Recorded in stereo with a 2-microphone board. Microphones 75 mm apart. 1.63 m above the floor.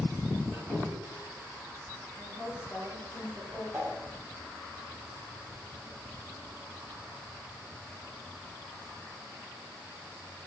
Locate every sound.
0.5 s a squeak: 10° left (ahead or behind), 2 m
2.2 s a woman speaking: centre (ahead or behind), 1.5 m
3.7 s a whoosh: 20° right (ahead or behind), 1.1 m